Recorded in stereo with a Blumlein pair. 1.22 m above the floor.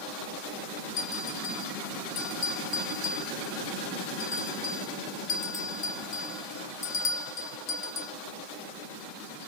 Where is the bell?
30° left, 2.5 m.